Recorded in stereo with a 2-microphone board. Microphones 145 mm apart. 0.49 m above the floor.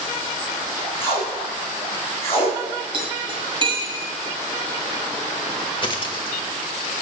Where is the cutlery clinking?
35° right (ahead or behind), 1.8 m.